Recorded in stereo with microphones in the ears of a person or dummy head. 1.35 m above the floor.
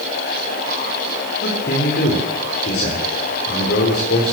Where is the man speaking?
50° left (ahead or behind), 4 m.